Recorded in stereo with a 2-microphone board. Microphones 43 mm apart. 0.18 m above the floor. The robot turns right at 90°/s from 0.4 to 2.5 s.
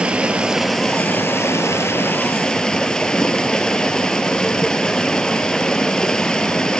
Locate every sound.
0.0 s running water: 25° right, 0.8 m; by 6.8 s 165° left, 0.8 m